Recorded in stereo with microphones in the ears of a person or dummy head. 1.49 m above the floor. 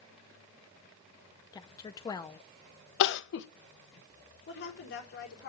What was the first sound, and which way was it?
A woman speaking, 15° left (ahead or behind).